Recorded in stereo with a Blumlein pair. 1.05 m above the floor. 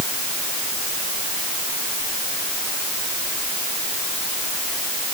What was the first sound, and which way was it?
Only background noise.